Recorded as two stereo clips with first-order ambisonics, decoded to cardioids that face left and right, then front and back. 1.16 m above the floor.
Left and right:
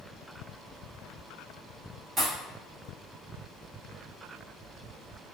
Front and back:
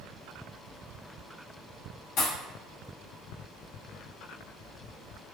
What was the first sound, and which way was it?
A pop, 20° right.